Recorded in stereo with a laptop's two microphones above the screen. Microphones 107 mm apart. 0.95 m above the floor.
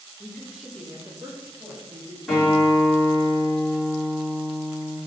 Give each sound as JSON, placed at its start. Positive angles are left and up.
{"t": 0.2, "sound": "a woman speaking", "side_deg": 20, "distance_m": 0.6}
{"t": 2.3, "sound": "a guitar", "side_deg": 5, "distance_m": 1.9}